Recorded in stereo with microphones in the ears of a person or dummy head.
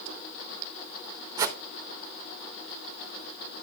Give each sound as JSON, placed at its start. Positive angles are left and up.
{"t": 1.4, "sound": "a whoosh", "side_deg": -20, "distance_m": 0.8}